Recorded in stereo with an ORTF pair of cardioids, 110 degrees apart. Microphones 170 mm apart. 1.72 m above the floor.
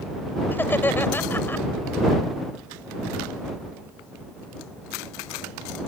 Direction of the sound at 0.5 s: 10° left.